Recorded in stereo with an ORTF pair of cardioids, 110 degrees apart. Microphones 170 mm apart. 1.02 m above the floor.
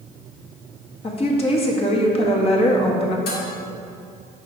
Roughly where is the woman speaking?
Ahead left.